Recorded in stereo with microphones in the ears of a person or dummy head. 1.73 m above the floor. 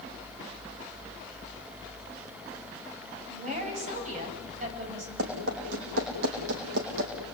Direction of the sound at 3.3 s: 45° right (ahead or behind).